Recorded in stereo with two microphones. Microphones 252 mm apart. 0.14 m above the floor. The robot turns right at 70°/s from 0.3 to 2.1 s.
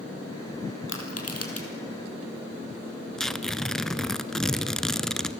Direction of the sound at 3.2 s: Centre (ahead or behind).